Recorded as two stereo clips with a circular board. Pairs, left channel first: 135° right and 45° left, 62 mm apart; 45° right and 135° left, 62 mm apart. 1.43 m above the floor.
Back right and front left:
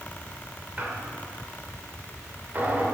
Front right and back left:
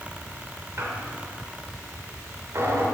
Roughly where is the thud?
I don't hear a thud.